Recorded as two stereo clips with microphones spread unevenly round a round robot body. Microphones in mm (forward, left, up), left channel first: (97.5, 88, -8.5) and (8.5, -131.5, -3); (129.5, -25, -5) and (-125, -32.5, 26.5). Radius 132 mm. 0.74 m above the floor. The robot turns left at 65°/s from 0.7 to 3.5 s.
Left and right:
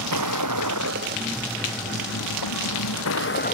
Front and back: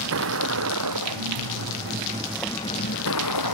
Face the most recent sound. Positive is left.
turn(degrees=15)